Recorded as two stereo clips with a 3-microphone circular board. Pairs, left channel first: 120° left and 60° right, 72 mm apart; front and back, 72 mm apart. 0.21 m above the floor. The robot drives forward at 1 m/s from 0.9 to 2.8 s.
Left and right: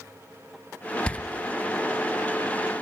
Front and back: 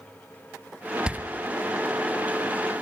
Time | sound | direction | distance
1.1 | a door slam | 145° left | 0.6 m